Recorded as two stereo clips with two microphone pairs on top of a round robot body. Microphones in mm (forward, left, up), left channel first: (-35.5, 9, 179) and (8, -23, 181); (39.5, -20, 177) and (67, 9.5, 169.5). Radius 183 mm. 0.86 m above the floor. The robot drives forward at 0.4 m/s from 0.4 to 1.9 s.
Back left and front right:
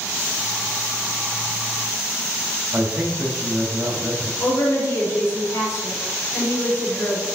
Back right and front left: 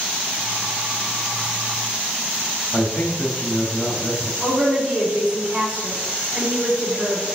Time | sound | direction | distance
2.7 | a man speaking | 95° right | 2.5 m
4.4 | a woman speaking | 160° left | 4 m